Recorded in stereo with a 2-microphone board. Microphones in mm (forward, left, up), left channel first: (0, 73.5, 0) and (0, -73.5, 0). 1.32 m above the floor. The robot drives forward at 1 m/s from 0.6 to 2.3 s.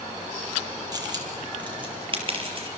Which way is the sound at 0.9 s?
30° right (ahead or behind).